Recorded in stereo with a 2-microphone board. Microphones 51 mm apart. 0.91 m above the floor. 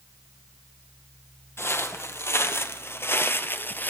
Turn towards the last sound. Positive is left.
turn(degrees=35)  # may be behind; listen again after turning